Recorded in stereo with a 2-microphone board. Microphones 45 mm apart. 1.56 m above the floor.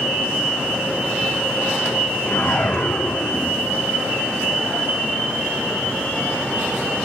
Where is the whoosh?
45° left (ahead or behind), 2.0 m.